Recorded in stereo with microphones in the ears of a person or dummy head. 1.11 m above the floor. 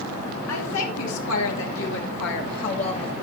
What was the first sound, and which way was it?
A woman speaking, 75° left (ahead or behind).